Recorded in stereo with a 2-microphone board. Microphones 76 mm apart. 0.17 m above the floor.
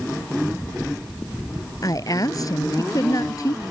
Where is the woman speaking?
50° left (ahead or behind).